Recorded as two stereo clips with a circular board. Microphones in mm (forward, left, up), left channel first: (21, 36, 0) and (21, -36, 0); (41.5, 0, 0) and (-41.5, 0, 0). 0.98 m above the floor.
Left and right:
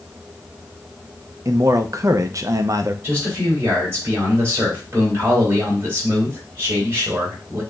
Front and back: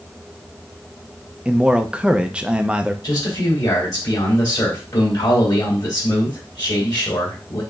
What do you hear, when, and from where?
1.4 s a man speaking: 105° right, 0.6 m
3.0 s a man speaking: 35° right, 3.5 m